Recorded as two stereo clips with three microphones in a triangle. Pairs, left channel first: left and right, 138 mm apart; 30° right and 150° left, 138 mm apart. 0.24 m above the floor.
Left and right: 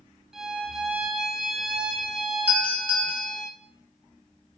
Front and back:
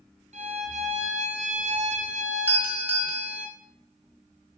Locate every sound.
0.3 s a violin: 175° right, 1.0 m
2.5 s a doorbell: 150° right, 1.9 m